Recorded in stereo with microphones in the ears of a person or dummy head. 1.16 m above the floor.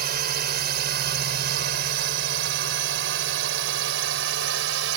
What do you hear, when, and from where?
0.0 s a drone: 55° right (ahead or behind); by 5.0 s 75° right (ahead or behind)